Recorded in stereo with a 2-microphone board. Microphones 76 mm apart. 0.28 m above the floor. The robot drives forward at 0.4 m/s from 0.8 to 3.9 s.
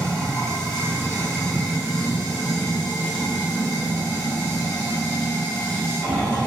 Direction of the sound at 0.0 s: 10° left (ahead or behind).